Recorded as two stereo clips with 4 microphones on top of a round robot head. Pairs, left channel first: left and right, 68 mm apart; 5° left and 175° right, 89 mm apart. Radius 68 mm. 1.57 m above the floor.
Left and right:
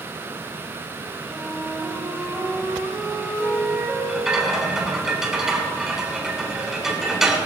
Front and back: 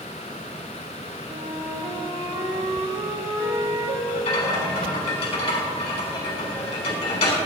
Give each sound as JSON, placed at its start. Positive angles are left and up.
{"t": 1.3, "sound": "a flute", "azimuth_deg": -170, "distance_m": 3.0}
{"t": 4.1, "sound": "a rattle", "azimuth_deg": -5, "distance_m": 4.5}